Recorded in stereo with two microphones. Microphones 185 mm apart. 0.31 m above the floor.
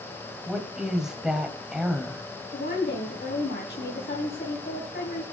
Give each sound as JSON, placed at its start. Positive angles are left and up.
{"t": 0.5, "sound": "a woman speaking", "side_deg": -5, "distance_m": 1.8}
{"t": 2.5, "sound": "a woman speaking", "side_deg": 60, "distance_m": 3.0}